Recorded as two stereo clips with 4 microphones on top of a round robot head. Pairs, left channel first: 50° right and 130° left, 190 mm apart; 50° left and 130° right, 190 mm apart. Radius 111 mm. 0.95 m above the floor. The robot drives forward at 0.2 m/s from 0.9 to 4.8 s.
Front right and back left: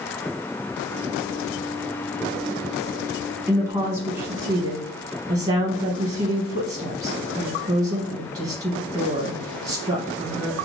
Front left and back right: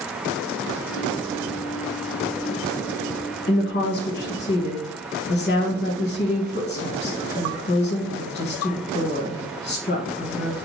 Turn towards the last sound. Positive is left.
turn(degrees=85)